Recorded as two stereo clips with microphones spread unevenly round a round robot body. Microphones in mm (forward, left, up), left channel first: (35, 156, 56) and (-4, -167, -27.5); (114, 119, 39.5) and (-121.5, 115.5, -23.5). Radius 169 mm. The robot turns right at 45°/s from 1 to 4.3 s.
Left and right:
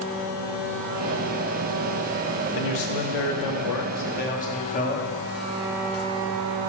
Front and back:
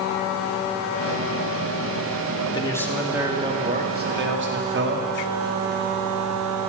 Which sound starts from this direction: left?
A man speaking, at 2.5 s.